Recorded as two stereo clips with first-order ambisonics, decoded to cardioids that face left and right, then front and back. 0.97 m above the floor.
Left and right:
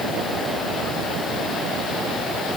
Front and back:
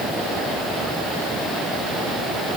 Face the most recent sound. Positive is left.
No sound to turn to.